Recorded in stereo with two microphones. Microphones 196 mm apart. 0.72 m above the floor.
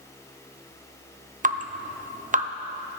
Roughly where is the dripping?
Right.